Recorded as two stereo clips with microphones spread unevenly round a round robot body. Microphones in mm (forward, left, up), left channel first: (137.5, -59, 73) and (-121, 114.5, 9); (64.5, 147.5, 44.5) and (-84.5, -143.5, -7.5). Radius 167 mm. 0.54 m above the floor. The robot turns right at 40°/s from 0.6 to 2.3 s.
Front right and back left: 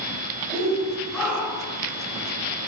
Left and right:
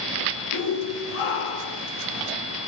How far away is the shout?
About 9.5 m.